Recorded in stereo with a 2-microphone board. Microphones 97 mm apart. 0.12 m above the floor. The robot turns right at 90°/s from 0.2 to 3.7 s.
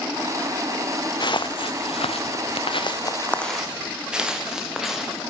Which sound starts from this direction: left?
Footsteps, at 1.2 s.